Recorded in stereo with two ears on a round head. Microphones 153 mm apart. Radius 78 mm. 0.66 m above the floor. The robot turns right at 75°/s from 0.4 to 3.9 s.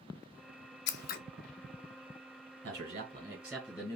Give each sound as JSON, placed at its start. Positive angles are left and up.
{"t": 0.9, "sound": "scissors", "side_deg": 75, "distance_m": 0.6}
{"t": 2.6, "sound": "a man speaking", "azimuth_deg": -70, "distance_m": 3.0}